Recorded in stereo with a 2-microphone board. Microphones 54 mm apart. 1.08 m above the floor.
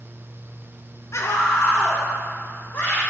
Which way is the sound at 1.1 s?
60° left (ahead or behind).